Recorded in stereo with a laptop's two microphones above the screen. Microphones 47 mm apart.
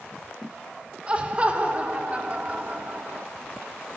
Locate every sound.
1.1 s laughter: 25° right (ahead or behind), 3.5 m; by 3.3 s 35° right (ahead or behind), 2.5 m